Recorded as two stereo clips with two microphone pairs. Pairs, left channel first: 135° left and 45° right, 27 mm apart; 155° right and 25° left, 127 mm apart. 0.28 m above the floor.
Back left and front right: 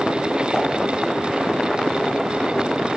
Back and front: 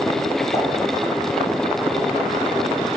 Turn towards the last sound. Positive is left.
turn(degrees=175)